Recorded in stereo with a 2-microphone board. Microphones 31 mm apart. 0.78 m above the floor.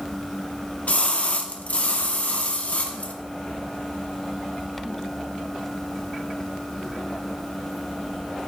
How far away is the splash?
About 1.0 m.